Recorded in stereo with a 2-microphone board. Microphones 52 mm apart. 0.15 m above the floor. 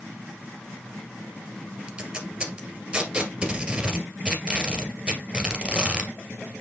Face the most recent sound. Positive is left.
turn(degrees=-20)  # may be behind; listen again after turning